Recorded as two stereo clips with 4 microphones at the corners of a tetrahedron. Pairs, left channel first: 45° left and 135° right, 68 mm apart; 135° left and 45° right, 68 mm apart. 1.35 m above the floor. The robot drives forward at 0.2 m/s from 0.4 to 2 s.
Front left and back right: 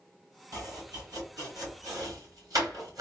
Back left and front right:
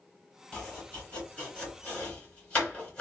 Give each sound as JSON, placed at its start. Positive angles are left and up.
{"t": 0.5, "sound": "chopping", "azimuth_deg": -155, "distance_m": 2.5}